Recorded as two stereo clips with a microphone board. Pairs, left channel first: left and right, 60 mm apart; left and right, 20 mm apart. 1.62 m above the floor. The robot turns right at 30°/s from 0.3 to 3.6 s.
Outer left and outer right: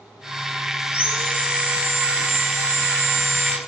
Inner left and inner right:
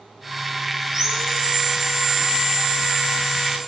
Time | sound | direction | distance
0.9 | sawing | 155° right | 1.3 m